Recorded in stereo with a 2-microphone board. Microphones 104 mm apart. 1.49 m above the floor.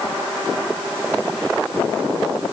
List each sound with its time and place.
Only background noise.